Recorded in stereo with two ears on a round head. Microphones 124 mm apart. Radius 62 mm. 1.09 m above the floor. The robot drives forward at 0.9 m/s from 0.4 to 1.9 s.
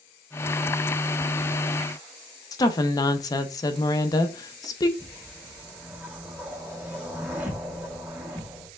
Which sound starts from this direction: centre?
A whoosh, at 5.0 s.